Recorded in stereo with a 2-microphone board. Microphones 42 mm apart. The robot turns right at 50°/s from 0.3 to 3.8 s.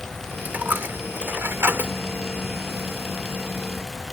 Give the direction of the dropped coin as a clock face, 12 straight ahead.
4 o'clock.